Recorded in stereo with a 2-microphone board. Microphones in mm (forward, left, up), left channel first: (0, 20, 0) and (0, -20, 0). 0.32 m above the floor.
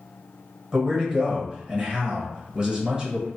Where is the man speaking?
20° right (ahead or behind), 1.2 m.